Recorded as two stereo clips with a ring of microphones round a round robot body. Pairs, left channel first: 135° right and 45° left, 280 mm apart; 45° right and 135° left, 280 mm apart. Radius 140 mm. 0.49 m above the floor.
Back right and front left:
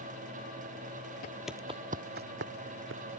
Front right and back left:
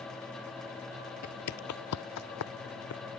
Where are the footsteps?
85° right; by 3.0 s 5° right.